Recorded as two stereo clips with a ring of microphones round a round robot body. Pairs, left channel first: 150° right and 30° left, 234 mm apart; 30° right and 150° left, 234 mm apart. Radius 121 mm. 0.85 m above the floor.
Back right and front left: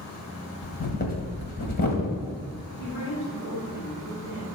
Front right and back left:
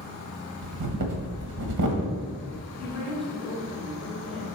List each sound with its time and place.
0.6 s breathing: 155° left, 1.5 m
2.8 s a woman speaking: 120° right, 3 m